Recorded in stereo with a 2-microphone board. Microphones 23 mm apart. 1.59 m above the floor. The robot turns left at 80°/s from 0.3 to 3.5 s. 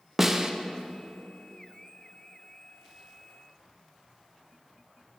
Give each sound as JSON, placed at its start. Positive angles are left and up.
{"t": 0.2, "sound": "a snare drum", "side_deg": -15, "distance_m": 0.5}